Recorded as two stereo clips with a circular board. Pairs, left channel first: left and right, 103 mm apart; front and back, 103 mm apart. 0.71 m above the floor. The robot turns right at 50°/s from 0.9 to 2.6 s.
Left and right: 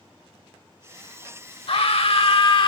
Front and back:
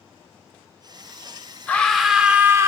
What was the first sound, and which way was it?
A scream, 75° left.